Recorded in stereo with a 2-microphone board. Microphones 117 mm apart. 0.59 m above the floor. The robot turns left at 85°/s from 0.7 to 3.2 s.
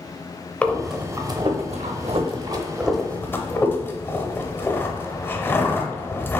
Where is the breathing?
10° left (ahead or behind), 0.6 m; by 6.4 s 20° left (ahead or behind), 0.6 m.